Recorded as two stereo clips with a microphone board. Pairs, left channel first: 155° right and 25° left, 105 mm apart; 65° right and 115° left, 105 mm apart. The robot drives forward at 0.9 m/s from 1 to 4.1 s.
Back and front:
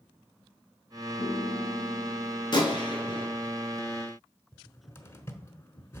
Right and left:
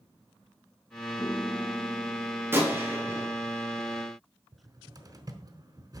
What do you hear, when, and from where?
1.2 s a piano: 120° right, 0.9 m; by 2.9 s 160° right, 2 m
2.5 s a gunshot: 175° left, 2.0 m
4.5 s a cupboard door: 145° left, 1.0 m